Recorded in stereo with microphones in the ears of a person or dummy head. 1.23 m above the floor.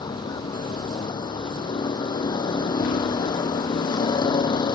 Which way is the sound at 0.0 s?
25° left (ahead or behind).